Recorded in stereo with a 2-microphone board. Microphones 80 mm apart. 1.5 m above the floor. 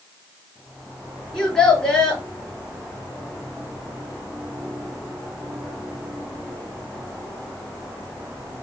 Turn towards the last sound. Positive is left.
turn(degrees=15)  # may be behind; listen again after turning